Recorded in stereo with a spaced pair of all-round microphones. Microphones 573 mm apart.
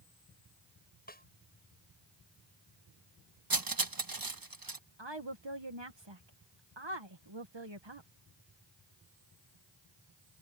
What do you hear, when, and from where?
1.1 s a snare drum: 15° left (ahead or behind)
3.5 s cutlery clinking: 35° right (ahead or behind)
5.0 s a woman speaking: 50° right (ahead or behind)